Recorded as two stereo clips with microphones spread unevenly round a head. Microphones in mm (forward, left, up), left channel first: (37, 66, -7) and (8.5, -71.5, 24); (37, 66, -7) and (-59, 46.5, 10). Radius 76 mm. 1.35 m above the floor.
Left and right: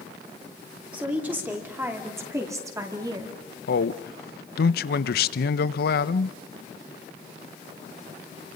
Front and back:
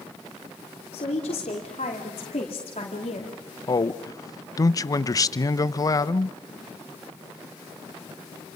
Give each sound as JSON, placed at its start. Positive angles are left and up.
{"t": 0.9, "sound": "a woman speaking", "azimuth_deg": -20, "distance_m": 5.0}
{"t": 3.7, "sound": "a man speaking", "azimuth_deg": 65, "distance_m": 0.9}